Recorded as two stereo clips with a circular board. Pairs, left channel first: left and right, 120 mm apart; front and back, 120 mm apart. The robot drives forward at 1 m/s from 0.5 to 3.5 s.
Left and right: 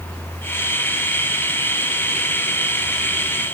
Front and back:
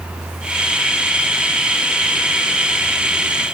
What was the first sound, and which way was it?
Only background noise.